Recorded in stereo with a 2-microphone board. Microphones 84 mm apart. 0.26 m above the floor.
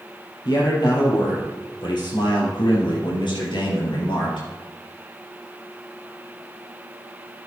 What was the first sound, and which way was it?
A man speaking, 60° left (ahead or behind).